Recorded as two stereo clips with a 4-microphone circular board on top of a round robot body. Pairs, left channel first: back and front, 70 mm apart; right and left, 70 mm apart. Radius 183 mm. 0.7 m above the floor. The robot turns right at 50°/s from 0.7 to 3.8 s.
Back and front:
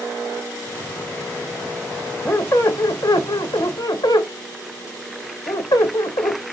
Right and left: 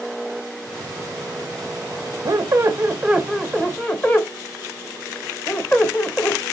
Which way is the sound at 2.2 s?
125° left.